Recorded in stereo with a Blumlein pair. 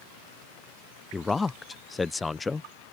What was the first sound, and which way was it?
A man speaking, 15° left.